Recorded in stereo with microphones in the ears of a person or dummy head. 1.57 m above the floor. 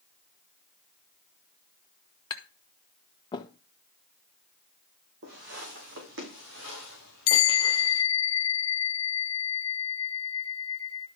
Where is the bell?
80° left, 0.7 m.